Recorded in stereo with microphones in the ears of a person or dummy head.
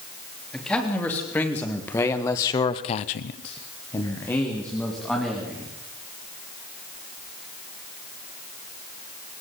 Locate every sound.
0.5 s a man speaking: 5° left (ahead or behind), 3.5 m; by 5.7 s 10° left (ahead or behind), 3.5 m